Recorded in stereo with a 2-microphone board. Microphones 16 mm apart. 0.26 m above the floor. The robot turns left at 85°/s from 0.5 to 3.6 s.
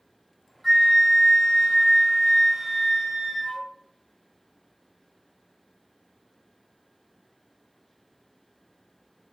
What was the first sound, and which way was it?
A flute, 165° left.